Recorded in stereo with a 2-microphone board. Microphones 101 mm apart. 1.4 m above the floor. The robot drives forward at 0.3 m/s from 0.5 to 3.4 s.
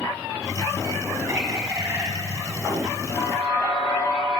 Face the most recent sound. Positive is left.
turn(degrees=65)  # may be behind; listen again after turning